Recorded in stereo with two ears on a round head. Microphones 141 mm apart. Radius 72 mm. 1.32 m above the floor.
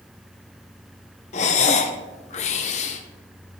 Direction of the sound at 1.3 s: 45° left (ahead or behind).